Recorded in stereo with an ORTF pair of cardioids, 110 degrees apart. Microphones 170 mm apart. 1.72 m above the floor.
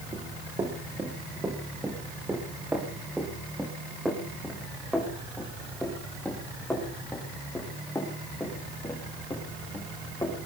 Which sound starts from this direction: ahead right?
Running footsteps, at 0.1 s.